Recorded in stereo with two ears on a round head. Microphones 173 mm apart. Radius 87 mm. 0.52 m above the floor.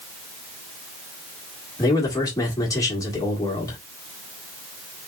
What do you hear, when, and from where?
1.8 s a man speaking: 20° left (ahead or behind), 1.5 m